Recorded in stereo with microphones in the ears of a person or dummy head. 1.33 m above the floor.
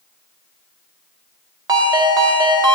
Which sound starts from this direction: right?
A ringtone, at 1.7 s.